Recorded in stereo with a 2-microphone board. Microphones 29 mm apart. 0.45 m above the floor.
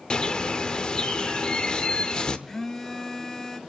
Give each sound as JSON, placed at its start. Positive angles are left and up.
{"t": 0.1, "sound": "a bird", "side_deg": 35, "distance_m": 1.0}
{"t": 2.5, "sound": "a phone buzzing", "side_deg": 15, "distance_m": 1.0}